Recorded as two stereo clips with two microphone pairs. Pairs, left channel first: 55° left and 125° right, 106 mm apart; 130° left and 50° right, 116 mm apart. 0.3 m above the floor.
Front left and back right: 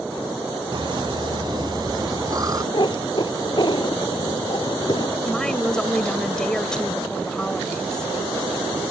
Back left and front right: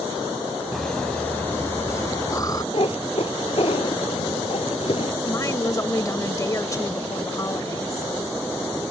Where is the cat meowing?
95° left.